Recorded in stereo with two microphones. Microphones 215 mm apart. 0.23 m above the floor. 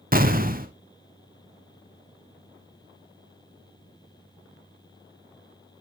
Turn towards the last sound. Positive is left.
turn(degrees=-40)  # may be behind; listen again after turning